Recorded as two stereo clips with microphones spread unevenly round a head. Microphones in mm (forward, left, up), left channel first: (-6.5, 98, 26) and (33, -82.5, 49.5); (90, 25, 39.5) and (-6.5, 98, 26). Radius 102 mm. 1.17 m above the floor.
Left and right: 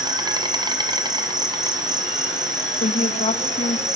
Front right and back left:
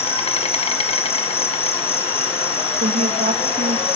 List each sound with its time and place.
0.0 s an insect: 10° right, 1.5 m
2.8 s a woman speaking: 155° left, 1.9 m